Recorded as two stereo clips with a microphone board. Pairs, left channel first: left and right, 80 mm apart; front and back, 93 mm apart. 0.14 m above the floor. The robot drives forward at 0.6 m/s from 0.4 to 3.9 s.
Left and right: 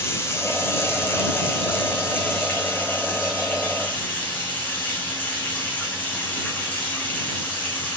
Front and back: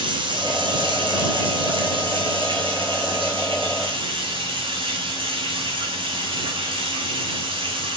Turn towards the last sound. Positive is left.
turn(degrees=155)